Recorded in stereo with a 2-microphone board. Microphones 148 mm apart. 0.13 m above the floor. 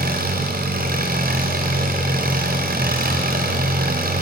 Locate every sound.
0.0 s an engine running: 80° right, 4 m